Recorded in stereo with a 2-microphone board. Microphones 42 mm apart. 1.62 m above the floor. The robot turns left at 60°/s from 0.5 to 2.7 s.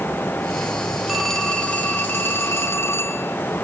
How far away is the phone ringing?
About 4.5 m.